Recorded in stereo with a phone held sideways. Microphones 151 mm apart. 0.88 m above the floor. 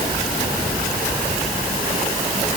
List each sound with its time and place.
Only background noise.